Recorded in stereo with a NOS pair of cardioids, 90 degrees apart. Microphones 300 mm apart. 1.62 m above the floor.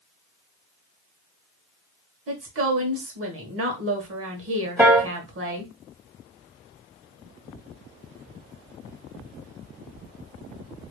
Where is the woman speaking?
50° right, 1.6 m.